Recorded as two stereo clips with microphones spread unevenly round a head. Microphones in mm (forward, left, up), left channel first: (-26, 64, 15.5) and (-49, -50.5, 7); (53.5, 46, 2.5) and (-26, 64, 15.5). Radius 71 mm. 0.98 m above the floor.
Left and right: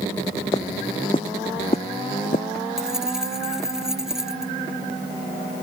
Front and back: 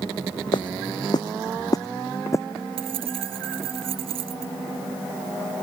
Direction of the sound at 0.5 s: 15° left.